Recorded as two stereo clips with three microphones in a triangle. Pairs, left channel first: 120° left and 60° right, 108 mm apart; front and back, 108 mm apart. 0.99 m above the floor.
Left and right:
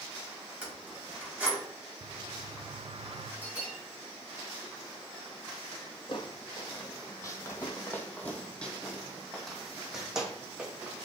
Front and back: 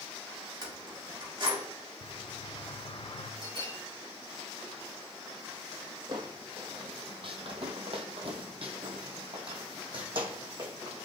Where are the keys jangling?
135° right, 4 m.